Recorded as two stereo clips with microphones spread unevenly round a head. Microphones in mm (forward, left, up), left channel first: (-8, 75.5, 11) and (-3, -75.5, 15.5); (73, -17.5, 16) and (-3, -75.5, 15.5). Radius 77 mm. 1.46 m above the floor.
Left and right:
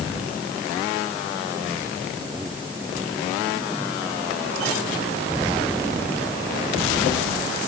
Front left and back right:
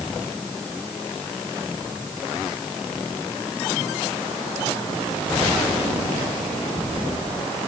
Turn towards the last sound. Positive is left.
No sound to turn to.